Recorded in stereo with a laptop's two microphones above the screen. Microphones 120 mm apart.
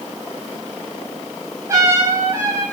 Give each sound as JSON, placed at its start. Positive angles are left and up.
{"t": 1.7, "sound": "a trumpet", "side_deg": -25, "distance_m": 5.5}